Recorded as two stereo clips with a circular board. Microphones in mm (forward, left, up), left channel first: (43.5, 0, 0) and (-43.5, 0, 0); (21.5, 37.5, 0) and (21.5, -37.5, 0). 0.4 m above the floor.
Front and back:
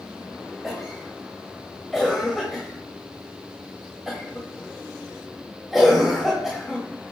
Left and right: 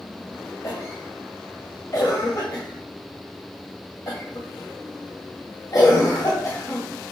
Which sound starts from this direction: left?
A cough, at 0.6 s.